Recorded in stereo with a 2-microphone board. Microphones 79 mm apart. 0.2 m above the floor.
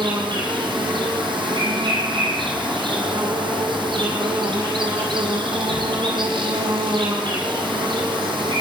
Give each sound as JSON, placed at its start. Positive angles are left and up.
{"t": 0.0, "sound": "an insect", "side_deg": -80, "distance_m": 4.5}